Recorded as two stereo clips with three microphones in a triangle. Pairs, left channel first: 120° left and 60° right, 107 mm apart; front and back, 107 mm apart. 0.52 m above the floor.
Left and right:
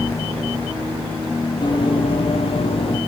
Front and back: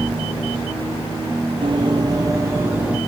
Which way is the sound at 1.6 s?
155° left.